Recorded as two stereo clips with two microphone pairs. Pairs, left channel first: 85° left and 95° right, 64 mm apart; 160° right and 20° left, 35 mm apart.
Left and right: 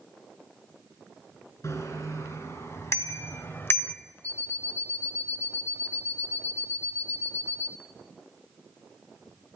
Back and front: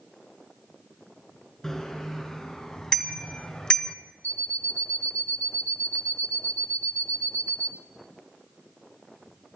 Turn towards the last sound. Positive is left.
turn(degrees=-125)